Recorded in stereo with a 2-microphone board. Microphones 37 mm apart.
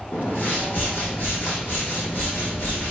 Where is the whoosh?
75° left (ahead or behind), 3 m.